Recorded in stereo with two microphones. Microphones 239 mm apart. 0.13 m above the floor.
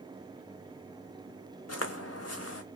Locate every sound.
1.7 s footsteps: 85° left, 0.6 m